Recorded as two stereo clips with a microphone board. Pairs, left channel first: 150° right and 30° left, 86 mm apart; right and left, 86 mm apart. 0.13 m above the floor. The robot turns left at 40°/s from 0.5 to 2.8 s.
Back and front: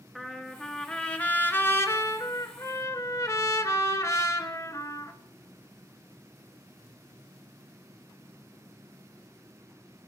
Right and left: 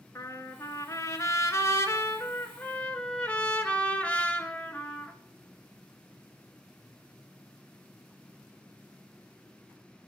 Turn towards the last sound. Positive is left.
turn(degrees=-155)